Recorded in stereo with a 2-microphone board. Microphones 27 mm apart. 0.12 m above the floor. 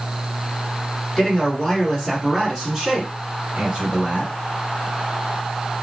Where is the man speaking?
20° left (ahead or behind), 1.7 m; by 4.3 s 35° right (ahead or behind), 2.0 m.